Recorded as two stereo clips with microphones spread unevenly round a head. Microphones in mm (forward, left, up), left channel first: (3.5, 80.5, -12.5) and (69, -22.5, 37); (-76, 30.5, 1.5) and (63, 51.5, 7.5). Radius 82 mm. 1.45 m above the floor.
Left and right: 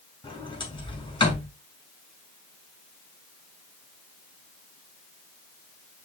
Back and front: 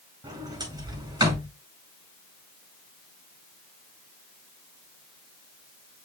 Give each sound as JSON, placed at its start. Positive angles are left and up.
{"t": 0.2, "sound": "a sliding door", "azimuth_deg": 70, "distance_m": 5.0}